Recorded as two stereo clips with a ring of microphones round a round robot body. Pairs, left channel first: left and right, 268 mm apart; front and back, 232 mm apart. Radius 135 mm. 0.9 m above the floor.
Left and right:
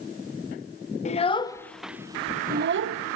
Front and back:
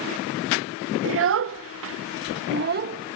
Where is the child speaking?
155° left, 1.1 m; by 3.2 s 115° right, 0.9 m.